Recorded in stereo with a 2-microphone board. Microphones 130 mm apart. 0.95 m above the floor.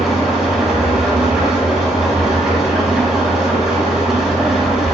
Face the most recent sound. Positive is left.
turn(degrees=-5)  # may be behind; listen again after turning